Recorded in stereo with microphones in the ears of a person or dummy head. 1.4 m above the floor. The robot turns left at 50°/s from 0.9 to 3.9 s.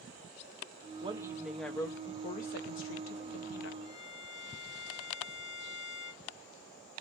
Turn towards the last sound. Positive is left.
turn(degrees=45)  # may be behind; listen again after turning